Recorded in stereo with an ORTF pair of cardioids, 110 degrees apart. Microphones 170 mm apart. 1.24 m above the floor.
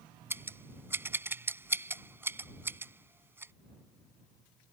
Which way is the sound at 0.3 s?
15° right.